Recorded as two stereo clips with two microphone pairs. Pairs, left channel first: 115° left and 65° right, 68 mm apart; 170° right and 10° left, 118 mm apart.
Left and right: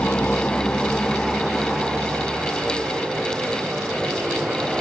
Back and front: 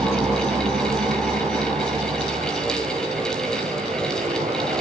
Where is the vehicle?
55° left; by 4.8 s straight ahead.